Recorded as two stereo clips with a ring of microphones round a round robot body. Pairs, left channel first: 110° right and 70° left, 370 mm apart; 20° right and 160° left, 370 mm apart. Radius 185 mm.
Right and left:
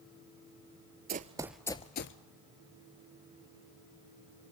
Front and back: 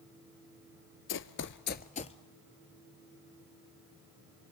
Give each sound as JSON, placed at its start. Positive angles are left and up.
{"t": 1.1, "sound": "running footsteps", "azimuth_deg": 15, "distance_m": 0.7}